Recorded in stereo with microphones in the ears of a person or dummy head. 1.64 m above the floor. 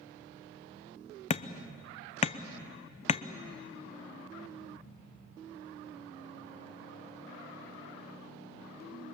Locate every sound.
1.3 s hammering: 40° left (ahead or behind), 0.7 m